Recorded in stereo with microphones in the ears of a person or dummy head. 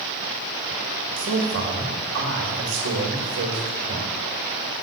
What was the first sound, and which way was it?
A man speaking, 60° right (ahead or behind).